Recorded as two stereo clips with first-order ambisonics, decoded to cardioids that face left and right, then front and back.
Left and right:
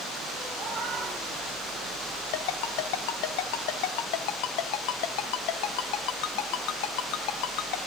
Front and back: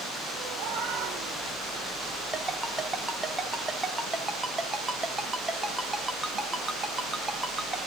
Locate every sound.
0.6 s a cat meowing: 150° right, 3 m; by 2.2 s 175° right, 5 m
2.3 s a ringtone: 100° left, 1.2 m